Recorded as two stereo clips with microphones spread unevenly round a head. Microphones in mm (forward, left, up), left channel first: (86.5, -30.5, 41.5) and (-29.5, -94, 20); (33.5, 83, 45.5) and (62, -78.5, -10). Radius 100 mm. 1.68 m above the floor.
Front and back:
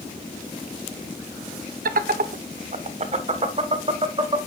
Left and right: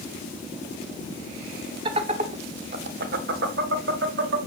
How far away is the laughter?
About 1.3 m.